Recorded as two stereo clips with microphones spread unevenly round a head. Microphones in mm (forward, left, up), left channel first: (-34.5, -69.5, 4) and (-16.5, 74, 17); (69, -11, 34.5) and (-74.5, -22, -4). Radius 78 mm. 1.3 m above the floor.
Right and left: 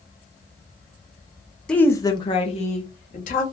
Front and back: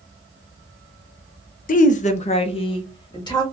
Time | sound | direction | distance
1.7 | a woman speaking | 20° right | 0.5 m